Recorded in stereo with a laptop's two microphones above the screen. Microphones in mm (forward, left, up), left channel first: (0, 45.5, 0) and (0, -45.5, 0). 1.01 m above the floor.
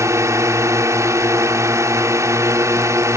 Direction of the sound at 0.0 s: 35° right (ahead or behind).